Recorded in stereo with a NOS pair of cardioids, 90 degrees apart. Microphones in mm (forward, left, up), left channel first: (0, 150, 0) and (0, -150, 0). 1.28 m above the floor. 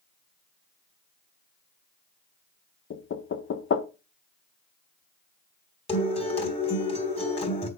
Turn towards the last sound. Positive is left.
turn(degrees=20)